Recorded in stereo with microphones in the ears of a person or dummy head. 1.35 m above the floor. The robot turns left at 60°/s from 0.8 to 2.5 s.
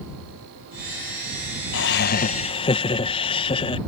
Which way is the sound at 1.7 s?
80° left.